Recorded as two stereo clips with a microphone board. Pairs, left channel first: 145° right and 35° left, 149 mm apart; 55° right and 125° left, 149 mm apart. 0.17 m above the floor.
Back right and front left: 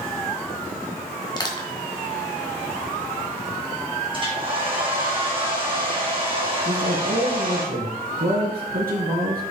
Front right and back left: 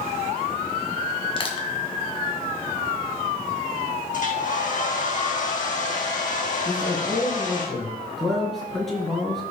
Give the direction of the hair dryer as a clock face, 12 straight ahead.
1 o'clock.